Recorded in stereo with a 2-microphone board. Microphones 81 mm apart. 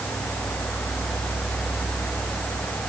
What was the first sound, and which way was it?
Only background noise.